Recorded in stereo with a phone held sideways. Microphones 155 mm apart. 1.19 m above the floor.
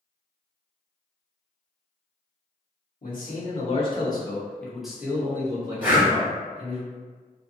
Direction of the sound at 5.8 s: 10° right (ahead or behind).